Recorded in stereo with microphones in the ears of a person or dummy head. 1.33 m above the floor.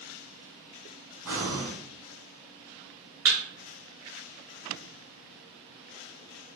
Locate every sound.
1.2 s breathing: 10° right (ahead or behind), 1.6 m
3.2 s a thud: 5° right (ahead or behind), 1.0 m